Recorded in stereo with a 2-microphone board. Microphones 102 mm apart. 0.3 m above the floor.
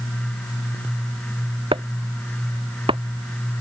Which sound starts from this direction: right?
Chopping, at 1.7 s.